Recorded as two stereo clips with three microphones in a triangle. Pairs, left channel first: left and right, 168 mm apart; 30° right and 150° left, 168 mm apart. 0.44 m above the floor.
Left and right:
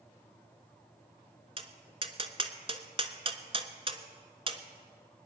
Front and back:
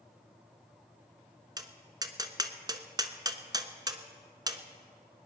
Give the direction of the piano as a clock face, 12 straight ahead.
No piano in this recording.